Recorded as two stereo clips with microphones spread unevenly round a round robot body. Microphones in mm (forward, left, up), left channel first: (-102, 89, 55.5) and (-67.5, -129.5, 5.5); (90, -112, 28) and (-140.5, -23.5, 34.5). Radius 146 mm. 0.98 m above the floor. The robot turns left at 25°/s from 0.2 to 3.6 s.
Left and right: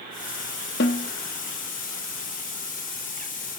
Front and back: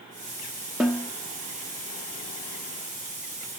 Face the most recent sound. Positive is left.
turn(degrees=5)